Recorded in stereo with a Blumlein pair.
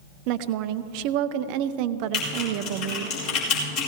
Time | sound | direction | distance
0.3 | a woman speaking | 45° right | 0.6 m
2.1 | typing on a keyboard | 45° left | 4 m